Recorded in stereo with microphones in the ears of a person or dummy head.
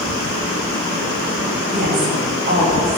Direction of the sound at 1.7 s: 40° right (ahead or behind).